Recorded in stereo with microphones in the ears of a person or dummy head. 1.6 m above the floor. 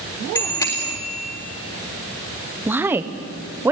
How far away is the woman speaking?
About 1.1 m.